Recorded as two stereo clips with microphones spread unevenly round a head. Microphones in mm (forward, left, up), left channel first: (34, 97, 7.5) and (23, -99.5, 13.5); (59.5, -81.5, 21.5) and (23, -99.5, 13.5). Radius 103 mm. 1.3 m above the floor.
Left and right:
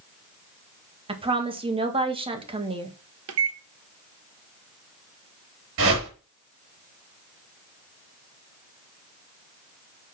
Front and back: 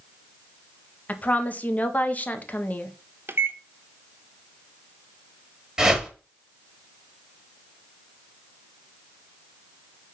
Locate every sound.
1.1 s a woman speaking: 30° right, 1.8 m
3.3 s a microwave: 120° right, 0.9 m
5.8 s a whoosh: 80° right, 4.5 m